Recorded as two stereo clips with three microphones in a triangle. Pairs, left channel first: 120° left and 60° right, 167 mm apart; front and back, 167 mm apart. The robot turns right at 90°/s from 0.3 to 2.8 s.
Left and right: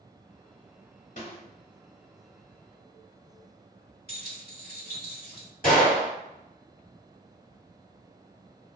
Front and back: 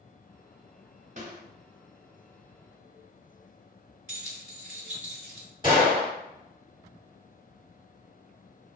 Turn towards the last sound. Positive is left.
turn(degrees=120)